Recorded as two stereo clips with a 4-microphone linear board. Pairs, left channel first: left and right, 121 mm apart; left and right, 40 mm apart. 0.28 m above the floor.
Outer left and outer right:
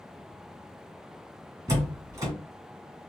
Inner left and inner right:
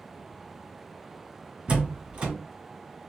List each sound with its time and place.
1.7 s a door slam: 25° right (ahead or behind), 1.5 m